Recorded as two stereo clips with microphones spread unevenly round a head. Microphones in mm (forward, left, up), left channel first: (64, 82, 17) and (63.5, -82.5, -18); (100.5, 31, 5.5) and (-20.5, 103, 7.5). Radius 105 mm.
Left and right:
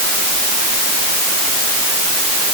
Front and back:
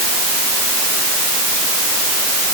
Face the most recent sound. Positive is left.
No sound to turn to.